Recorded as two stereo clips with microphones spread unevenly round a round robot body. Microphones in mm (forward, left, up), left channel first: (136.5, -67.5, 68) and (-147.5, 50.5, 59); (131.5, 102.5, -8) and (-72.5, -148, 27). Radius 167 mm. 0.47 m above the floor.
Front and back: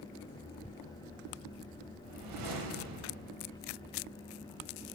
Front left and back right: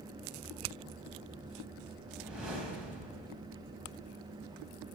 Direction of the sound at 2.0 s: 140° left.